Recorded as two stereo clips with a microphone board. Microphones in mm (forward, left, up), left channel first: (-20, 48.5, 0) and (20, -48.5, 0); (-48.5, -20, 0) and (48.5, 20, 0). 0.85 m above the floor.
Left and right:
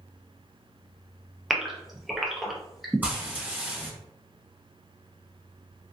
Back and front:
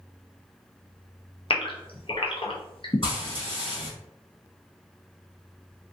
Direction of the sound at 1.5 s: 155° right.